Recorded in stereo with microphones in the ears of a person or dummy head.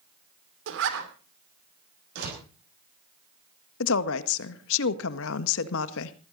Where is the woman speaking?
70° left (ahead or behind), 1.4 m.